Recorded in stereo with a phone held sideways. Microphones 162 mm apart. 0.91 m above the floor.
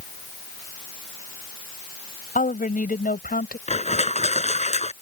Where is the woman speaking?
55° left (ahead or behind); by 3.6 s 60° left (ahead or behind).